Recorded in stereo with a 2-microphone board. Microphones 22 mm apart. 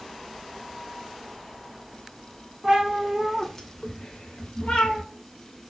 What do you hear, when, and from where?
2.6 s a cat meowing: 30° right (ahead or behind), 0.8 m; by 5.0 s 75° left (ahead or behind), 1.0 m